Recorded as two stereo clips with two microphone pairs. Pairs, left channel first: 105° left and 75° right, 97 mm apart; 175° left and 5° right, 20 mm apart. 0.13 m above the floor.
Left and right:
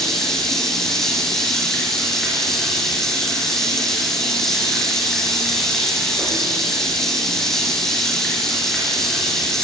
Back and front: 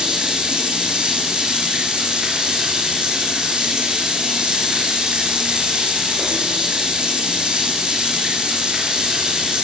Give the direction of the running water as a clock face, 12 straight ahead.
11 o'clock.